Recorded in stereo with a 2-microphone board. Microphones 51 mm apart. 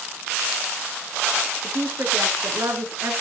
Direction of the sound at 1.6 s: 50° right (ahead or behind).